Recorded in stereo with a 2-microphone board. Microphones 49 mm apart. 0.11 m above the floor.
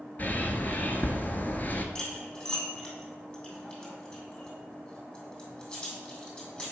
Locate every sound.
0.2 s a bird: 40° left (ahead or behind), 0.7 m
1.9 s cutlery clinking: 25° left (ahead or behind), 2.5 m